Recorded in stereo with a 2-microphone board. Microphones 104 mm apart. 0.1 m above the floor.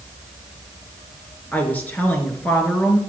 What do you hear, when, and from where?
1.5 s a woman speaking: 15° left (ahead or behind), 1.6 m